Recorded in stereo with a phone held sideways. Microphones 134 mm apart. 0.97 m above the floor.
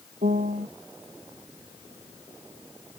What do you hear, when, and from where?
0.2 s a piano: 85° right